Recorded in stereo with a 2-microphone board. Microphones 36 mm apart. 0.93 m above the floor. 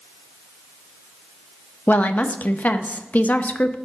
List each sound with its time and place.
1.9 s a woman speaking: 50° left (ahead or behind), 0.6 m